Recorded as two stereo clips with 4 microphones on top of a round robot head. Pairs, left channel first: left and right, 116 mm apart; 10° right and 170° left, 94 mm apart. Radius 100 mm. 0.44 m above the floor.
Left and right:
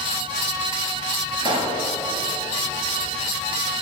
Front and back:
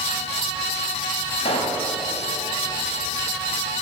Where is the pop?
35° right, 1.9 m.